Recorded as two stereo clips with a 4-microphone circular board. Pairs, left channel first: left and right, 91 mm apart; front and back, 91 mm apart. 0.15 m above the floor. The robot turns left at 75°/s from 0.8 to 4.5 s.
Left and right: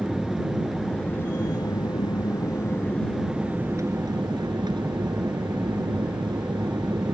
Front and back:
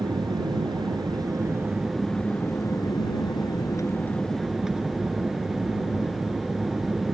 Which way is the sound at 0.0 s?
Straight behind.